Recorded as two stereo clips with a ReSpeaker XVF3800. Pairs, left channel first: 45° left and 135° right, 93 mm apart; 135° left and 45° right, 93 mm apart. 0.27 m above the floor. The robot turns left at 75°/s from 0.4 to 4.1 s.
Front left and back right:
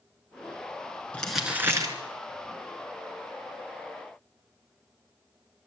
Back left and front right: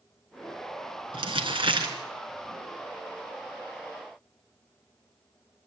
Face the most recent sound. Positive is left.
turn(degrees=110)